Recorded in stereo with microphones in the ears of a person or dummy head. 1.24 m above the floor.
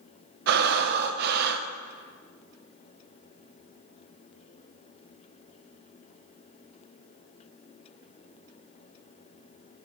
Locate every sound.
0.5 s breathing: 55° right (ahead or behind), 0.5 m